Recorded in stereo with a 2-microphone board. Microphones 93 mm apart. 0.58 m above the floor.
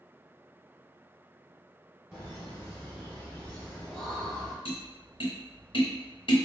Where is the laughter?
25° left (ahead or behind), 1.4 m; by 4.5 s centre (ahead or behind), 1.2 m.